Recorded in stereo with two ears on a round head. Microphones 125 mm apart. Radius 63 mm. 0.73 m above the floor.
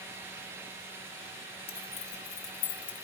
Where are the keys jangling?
45° left (ahead or behind), 3 m; by 3.0 s 85° left, 2.5 m.